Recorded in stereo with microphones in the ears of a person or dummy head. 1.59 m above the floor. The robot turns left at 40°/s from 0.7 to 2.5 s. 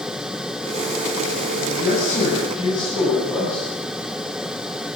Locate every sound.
1.6 s a man speaking: 60° left, 9.5 m; by 3.7 s 25° left, 9.5 m